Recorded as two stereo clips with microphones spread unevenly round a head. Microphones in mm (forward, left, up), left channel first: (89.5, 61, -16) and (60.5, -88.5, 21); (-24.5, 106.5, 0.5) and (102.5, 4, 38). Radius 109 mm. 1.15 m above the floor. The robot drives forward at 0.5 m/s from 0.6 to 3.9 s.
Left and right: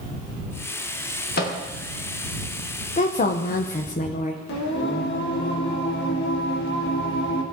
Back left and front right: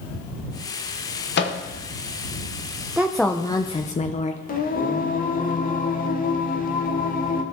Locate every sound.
1.4 s a microwave: 125° left, 0.9 m; by 1.6 s 130° left, 0.9 m
3.0 s a woman speaking: 50° left, 0.6 m; by 4.4 s 105° left, 0.5 m
4.5 s singing: 105° left, 0.9 m